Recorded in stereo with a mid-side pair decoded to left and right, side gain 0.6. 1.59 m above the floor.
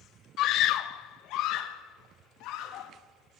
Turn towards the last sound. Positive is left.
turn(degrees=70)